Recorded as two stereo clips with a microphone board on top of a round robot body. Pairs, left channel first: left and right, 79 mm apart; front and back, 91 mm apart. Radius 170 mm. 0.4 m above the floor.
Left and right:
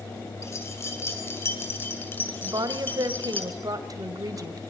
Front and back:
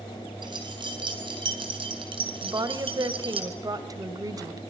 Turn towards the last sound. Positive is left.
turn(degrees=-130)